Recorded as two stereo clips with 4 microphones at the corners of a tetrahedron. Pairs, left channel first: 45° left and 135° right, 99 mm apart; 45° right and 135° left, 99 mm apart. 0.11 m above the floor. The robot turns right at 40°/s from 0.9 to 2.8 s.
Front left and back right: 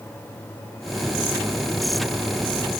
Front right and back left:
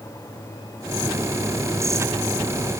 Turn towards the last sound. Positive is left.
No sound to turn to.